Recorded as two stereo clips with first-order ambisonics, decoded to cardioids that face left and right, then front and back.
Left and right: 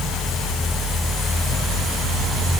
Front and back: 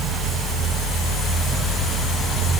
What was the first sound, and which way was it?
Only background noise.